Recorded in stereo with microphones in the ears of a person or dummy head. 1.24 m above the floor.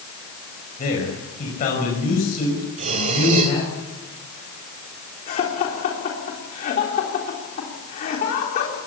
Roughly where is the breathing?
Right.